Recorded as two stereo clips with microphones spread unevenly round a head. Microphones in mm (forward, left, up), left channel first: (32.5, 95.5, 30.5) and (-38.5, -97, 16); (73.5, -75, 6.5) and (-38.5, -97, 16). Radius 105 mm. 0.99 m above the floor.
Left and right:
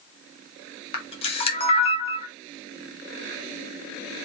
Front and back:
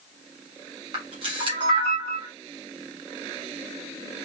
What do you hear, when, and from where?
0.9 s a camera shutter: 130° left, 1.3 m